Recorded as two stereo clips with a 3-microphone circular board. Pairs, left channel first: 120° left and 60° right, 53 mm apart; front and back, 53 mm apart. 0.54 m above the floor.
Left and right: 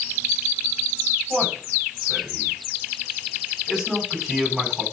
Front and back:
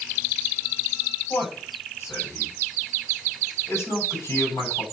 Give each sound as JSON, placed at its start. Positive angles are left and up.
{"t": 1.3, "sound": "a man speaking", "azimuth_deg": 30, "distance_m": 4.0}